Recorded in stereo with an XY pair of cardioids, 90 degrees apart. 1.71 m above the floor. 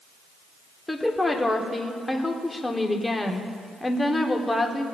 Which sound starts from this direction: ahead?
A woman speaking, at 0.9 s.